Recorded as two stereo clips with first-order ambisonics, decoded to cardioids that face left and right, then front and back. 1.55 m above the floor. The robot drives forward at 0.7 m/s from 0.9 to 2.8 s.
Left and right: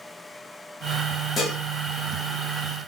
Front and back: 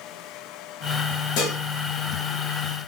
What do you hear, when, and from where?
1.4 s dishes clattering: 20° left, 1.4 m